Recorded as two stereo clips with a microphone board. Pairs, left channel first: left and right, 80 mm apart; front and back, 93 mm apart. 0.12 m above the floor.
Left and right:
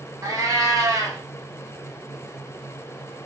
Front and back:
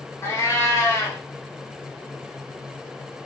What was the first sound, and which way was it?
A cat meowing, 55° right.